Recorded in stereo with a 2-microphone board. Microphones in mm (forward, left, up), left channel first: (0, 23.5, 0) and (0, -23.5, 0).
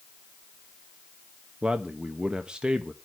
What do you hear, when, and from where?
1.6 s a man speaking: 20° right (ahead or behind), 0.8 m